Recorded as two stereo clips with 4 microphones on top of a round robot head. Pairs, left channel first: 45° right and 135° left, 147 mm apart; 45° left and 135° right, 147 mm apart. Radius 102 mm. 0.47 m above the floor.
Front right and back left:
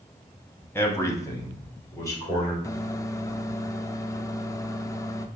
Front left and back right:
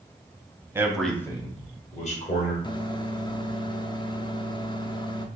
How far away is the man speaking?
About 1.1 m.